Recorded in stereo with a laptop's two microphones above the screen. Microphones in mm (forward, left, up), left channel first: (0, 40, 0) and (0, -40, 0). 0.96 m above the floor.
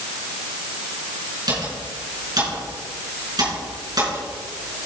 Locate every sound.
1.5 s typing on a keyboard: 55° right (ahead or behind), 5 m